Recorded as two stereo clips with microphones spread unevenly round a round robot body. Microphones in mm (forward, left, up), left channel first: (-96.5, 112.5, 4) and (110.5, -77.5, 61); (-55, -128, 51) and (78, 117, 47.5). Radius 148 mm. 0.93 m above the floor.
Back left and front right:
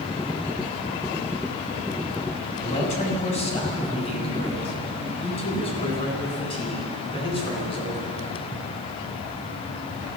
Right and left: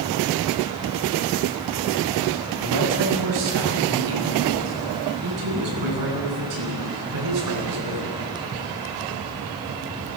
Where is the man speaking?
70° left, 7.5 m; by 8.1 s 65° left, 12 m.